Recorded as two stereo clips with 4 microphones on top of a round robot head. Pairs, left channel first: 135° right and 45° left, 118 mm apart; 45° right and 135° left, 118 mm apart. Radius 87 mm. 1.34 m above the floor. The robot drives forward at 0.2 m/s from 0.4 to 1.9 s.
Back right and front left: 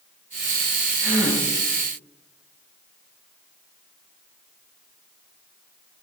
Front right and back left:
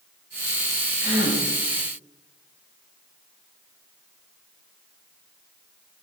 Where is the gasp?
70° right, 1.8 m; by 1.4 s 75° right, 1.8 m.